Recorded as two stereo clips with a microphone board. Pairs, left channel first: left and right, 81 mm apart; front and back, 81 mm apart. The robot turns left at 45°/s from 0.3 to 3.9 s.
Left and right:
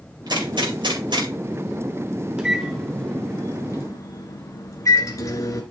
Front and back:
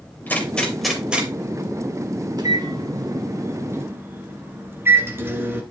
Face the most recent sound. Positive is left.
turn(degrees=125)